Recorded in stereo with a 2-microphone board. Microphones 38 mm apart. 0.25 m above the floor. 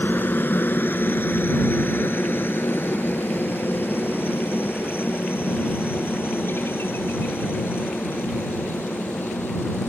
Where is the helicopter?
65° left (ahead or behind); by 9.9 s 80° left.